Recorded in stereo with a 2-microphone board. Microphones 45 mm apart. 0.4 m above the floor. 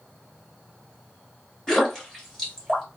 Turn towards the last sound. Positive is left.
turn(degrees=15)  # may be behind; listen again after turning